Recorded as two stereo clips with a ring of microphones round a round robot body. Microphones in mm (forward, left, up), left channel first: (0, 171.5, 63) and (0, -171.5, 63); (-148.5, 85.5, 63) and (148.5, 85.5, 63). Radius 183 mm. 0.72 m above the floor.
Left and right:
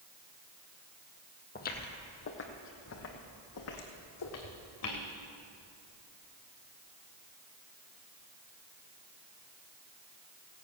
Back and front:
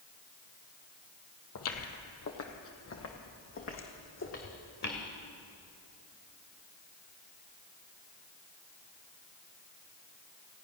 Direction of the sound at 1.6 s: 155° left.